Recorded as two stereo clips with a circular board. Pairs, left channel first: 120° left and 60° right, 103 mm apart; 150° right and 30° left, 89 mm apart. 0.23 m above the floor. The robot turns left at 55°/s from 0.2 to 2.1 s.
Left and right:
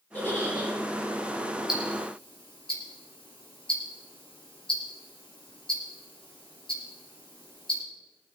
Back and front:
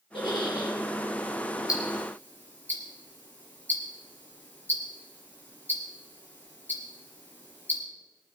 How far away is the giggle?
About 8 m.